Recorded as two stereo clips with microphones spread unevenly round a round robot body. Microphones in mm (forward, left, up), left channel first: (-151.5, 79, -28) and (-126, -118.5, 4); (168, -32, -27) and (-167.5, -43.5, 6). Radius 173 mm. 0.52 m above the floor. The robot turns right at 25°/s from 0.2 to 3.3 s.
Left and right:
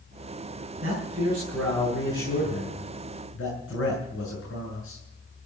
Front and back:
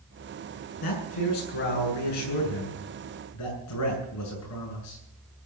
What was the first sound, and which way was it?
A man speaking, 15° right.